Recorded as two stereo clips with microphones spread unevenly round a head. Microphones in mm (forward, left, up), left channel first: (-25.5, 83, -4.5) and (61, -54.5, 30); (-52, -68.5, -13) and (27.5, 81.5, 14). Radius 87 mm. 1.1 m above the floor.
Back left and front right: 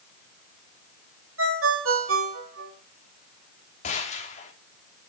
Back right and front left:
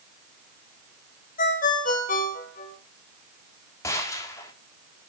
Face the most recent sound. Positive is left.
turn(degrees=170)